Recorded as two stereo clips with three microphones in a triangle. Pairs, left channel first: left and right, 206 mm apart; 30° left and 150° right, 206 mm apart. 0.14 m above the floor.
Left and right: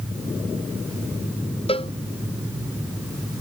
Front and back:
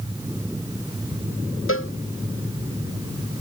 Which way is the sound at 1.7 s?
25° left.